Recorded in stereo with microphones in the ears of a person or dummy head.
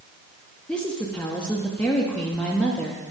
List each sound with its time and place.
0.7 s a woman speaking: 5° left (ahead or behind), 0.7 m